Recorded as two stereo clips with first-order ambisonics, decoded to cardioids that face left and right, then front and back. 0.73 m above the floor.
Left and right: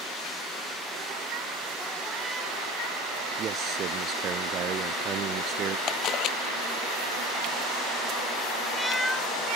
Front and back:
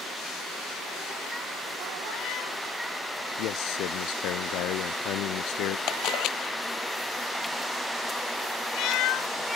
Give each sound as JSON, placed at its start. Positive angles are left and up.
{"t": 3.4, "sound": "a man speaking", "azimuth_deg": -35}
{"t": 5.9, "sound": "a camera shutter", "azimuth_deg": 45}